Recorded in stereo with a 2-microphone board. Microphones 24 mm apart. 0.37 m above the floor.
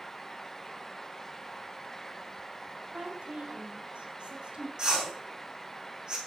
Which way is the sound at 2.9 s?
60° right (ahead or behind).